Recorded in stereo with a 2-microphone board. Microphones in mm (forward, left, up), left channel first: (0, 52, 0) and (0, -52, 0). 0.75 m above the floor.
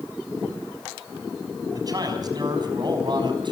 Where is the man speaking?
40° right (ahead or behind), 5 m; by 3.5 s 50° right (ahead or behind), 5.5 m.